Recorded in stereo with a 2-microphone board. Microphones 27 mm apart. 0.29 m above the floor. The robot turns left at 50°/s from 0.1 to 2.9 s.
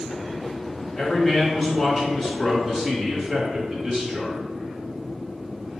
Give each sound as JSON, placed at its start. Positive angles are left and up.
{"t": 1.0, "sound": "a man speaking", "azimuth_deg": 65, "distance_m": 1.3}